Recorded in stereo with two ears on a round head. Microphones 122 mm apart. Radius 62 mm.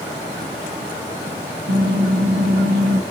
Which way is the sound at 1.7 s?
75° right (ahead or behind).